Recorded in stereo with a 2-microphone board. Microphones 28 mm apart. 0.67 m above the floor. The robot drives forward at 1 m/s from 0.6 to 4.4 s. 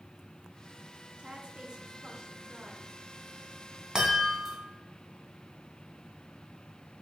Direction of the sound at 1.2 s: 45° right (ahead or behind).